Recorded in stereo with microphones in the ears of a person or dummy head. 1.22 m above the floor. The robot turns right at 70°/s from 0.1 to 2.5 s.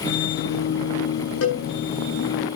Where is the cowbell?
80° left, 8 m.